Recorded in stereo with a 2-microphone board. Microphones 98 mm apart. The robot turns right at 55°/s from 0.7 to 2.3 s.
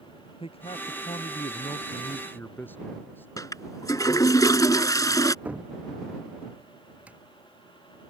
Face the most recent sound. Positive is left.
turn(degrees=-15)  # may be behind; listen again after turning